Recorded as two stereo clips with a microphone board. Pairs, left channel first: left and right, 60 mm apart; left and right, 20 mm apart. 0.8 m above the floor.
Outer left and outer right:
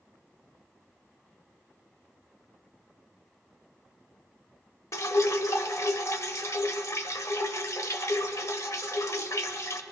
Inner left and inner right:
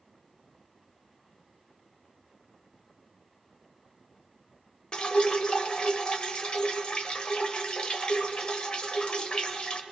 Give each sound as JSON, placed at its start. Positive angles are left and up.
{"t": 4.9, "sound": "dripping", "side_deg": 55, "distance_m": 0.7}